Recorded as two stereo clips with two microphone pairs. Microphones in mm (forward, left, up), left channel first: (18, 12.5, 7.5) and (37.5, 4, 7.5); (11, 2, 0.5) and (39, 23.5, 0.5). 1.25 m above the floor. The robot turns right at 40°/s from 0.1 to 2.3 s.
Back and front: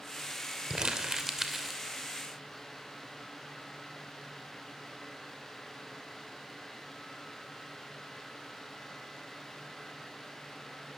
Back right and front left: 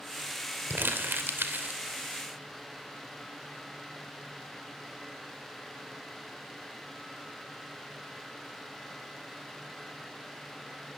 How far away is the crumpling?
About 2.5 m.